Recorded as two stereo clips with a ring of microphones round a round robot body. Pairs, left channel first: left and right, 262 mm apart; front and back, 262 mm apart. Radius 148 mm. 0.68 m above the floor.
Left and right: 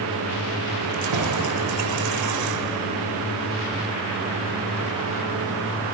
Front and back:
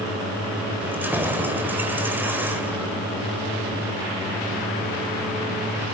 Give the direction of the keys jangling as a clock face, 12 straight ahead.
3 o'clock.